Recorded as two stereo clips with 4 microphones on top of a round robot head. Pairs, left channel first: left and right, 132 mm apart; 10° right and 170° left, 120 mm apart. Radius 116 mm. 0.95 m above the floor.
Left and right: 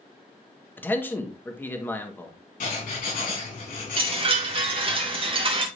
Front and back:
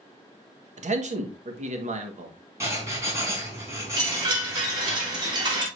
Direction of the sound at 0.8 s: 165° left.